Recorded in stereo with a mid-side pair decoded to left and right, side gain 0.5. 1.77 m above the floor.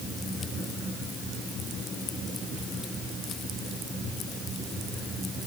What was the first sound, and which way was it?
Only background noise.